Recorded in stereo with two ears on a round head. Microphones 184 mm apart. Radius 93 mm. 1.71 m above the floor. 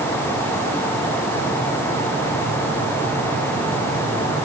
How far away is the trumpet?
No trumpet in this recording.